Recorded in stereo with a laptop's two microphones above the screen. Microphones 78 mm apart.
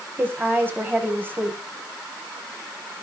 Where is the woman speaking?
25° right (ahead or behind), 6.5 m.